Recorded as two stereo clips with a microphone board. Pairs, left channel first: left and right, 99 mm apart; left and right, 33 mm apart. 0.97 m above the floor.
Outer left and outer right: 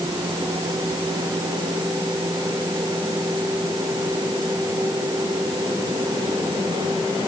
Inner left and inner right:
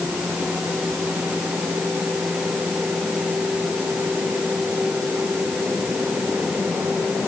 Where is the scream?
No scream in this recording.